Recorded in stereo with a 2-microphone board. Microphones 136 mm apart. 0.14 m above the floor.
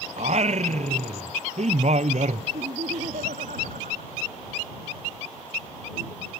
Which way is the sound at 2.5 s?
75° right (ahead or behind).